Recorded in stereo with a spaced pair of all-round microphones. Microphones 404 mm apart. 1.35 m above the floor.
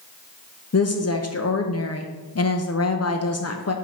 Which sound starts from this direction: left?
A woman speaking, at 0.7 s.